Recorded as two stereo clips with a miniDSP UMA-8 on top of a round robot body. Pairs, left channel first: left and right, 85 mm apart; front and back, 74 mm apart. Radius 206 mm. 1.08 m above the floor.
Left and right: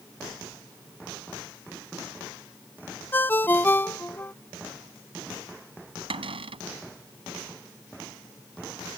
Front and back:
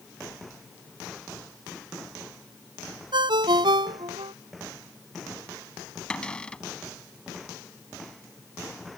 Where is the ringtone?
160° left.